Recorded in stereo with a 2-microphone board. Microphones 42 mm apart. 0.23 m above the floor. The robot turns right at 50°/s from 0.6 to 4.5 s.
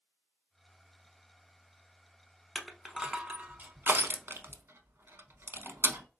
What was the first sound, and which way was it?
Crushing, 5° left (ahead or behind).